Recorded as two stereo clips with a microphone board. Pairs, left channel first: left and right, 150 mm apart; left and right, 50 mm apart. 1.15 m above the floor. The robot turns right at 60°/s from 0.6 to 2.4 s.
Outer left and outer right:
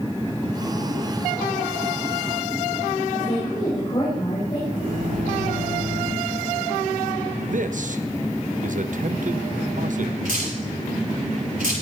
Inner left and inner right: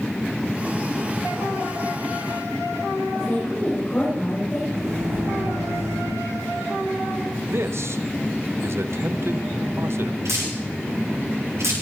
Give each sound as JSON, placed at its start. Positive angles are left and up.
{"t": 3.1, "sound": "a woman speaking", "side_deg": 40, "distance_m": 4.5}
{"t": 4.7, "sound": "a microwave", "side_deg": -85, "distance_m": 7.0}
{"t": 7.5, "sound": "a man speaking", "side_deg": -65, "distance_m": 0.8}
{"t": 10.2, "sound": "dripping", "side_deg": -85, "distance_m": 8.5}